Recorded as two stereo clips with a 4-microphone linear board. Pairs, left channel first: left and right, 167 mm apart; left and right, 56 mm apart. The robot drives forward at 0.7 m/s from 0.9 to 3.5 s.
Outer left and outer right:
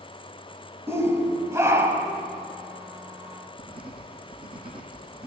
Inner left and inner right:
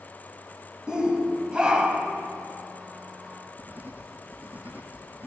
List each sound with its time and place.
0.9 s a shout: 15° right (ahead or behind), 1.1 m
3.6 s writing: 30° right (ahead or behind), 1.5 m